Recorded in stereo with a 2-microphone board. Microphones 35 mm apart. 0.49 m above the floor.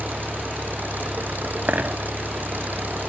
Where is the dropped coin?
60° right (ahead or behind).